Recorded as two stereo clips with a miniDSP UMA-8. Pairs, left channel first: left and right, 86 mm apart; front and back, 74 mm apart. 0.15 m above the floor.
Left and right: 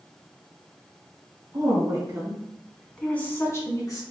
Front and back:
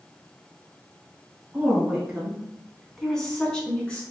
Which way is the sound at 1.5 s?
115° right.